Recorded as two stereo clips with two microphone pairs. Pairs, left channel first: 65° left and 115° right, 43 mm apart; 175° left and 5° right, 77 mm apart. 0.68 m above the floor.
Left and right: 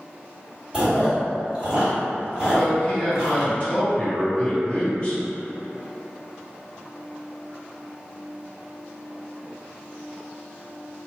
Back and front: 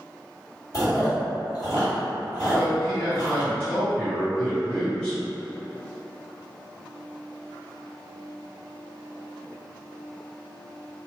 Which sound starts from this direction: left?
A man speaking, at 2.5 s.